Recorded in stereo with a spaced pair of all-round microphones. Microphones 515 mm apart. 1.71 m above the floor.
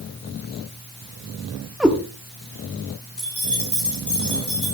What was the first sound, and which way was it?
A cat meowing, centre (ahead or behind).